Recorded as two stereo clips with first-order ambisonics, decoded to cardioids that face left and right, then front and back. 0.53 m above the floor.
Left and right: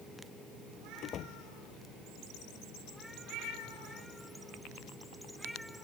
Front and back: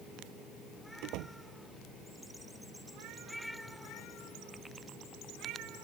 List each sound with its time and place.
1.0 s a door slam: 145° left